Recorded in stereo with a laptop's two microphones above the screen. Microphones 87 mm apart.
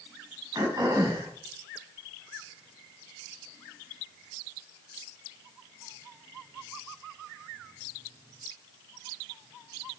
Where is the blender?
I don't hear a blender.